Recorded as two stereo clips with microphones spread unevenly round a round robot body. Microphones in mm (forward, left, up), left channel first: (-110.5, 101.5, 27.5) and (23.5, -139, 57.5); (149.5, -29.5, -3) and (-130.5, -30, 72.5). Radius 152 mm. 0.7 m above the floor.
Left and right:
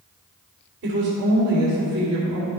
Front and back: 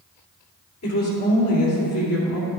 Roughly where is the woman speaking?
Ahead.